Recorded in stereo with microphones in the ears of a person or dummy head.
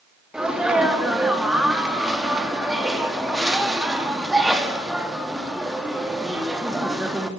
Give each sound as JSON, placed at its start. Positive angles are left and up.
{"t": 0.3, "sound": "a sneeze", "side_deg": -5, "distance_m": 3.0}